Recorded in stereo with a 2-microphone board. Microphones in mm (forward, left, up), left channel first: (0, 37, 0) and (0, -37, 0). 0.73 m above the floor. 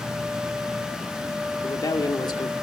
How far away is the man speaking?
About 2 m.